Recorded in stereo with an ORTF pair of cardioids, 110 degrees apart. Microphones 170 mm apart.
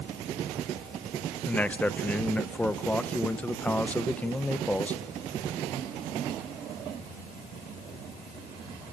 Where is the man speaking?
10° left, 1.6 m.